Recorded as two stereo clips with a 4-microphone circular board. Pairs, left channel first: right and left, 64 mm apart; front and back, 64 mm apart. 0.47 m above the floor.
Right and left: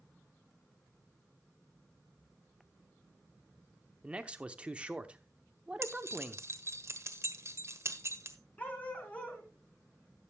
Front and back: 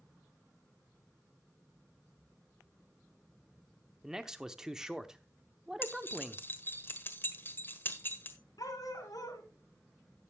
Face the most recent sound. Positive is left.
turn(degrees=-20)